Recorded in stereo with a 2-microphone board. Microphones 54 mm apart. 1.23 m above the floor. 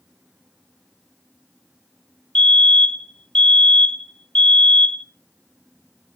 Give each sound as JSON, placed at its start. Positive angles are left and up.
{"t": 2.4, "sound": "a fire alarm", "side_deg": 20, "distance_m": 0.9}